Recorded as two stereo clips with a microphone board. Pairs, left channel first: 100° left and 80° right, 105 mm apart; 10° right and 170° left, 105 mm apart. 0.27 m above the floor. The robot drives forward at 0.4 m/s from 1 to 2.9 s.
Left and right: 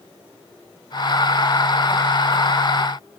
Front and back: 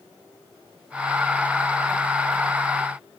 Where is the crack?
No crack in this recording.